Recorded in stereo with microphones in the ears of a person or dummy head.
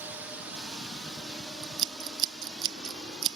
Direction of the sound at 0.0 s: 10° right (ahead or behind).